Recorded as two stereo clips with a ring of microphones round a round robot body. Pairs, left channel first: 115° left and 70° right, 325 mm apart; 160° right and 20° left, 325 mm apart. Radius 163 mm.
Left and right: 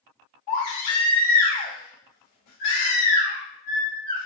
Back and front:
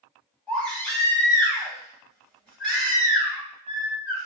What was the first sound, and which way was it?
A baby crying, 115° left.